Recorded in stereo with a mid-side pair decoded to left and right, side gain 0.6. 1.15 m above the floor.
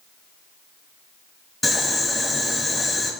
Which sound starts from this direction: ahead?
Boiling, at 1.6 s.